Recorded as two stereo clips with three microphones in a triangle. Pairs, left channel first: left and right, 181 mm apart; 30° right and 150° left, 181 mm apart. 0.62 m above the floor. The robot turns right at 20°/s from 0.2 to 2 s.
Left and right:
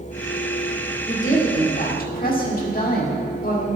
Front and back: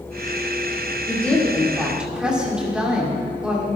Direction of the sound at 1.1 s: 50° left.